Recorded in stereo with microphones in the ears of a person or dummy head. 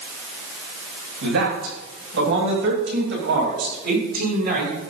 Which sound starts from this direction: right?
A man speaking, at 1.2 s.